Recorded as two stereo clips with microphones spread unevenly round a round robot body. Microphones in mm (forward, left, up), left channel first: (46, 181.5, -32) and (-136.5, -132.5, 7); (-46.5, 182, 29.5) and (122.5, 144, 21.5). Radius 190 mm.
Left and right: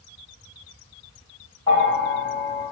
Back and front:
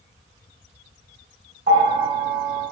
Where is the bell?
20° right, 1.9 m.